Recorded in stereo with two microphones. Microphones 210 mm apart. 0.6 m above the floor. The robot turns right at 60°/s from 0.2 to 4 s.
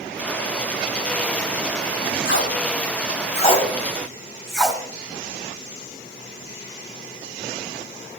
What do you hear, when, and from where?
2.2 s tape being pulled: 75° left (ahead or behind), 2 m; by 4.8 s centre (ahead or behind), 2 m